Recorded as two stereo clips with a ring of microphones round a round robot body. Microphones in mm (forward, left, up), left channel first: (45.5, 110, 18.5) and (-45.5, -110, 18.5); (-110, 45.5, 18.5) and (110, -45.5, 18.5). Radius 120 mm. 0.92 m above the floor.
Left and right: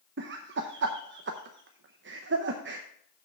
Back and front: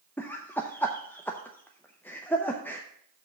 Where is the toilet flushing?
No toilet flushing in this recording.